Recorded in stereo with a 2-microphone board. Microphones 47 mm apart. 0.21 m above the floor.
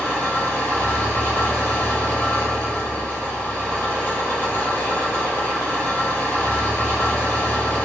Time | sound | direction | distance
0.0 | an engine running | 65° left (ahead or behind) | 1.6 m